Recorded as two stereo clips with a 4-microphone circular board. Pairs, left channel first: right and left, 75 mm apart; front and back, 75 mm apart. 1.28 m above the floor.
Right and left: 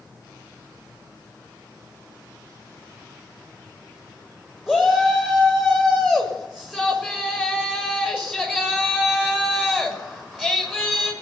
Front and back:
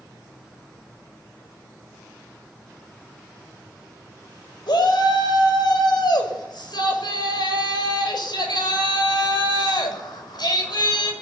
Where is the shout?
10° left, 6.5 m.